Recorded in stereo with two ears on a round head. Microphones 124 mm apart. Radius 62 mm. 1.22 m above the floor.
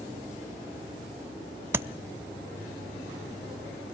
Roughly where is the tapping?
Centre.